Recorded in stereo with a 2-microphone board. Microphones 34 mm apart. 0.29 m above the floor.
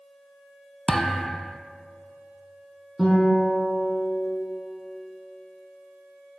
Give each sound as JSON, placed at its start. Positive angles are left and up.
{"t": 0.9, "sound": "a thud", "side_deg": 10, "distance_m": 0.5}
{"t": 3.0, "sound": "a guitar", "side_deg": 0, "distance_m": 4.0}